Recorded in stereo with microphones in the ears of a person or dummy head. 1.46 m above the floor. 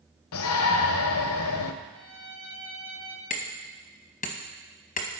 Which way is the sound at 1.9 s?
10° left (ahead or behind).